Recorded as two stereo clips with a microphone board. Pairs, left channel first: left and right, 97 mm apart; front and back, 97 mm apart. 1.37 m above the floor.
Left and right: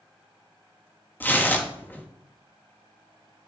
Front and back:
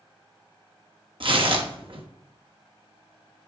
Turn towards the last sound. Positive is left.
turn(degrees=160)